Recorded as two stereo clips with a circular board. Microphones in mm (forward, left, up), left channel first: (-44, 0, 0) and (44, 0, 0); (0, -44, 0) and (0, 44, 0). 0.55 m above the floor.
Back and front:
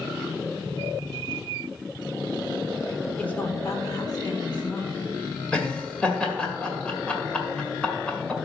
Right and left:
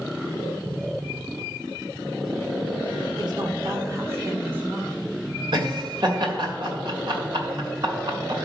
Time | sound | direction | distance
3.2 | a woman speaking | 105° left | 1.4 m
5.5 | laughter | 100° left | 2.0 m